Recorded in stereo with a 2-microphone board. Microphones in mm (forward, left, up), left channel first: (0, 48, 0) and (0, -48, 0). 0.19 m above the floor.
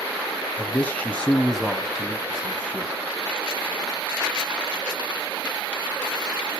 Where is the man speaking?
20° left (ahead or behind), 1.1 m; by 2.9 s 15° right (ahead or behind), 1.4 m.